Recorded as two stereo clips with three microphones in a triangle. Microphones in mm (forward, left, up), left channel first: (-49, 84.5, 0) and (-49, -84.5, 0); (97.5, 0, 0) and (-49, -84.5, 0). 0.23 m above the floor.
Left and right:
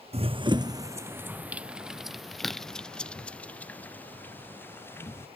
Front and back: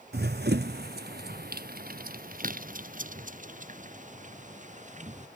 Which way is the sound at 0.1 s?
145° right.